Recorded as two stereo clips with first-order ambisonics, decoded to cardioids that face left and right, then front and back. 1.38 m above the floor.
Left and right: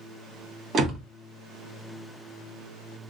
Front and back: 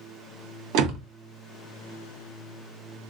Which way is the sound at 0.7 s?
150° right.